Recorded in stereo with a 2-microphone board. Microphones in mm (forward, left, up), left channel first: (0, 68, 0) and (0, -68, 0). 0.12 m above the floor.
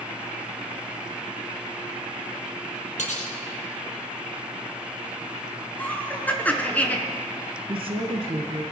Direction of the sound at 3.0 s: 65° left (ahead or behind).